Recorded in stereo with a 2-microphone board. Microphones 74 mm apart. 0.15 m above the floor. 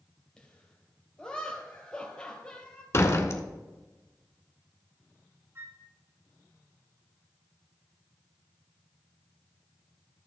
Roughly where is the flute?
Right.